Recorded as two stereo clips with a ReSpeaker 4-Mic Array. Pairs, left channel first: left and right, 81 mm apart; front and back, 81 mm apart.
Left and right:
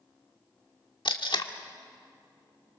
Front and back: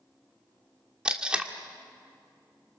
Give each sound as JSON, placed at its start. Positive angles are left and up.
{"t": 1.1, "sound": "tape being pulled", "azimuth_deg": 100, "distance_m": 1.5}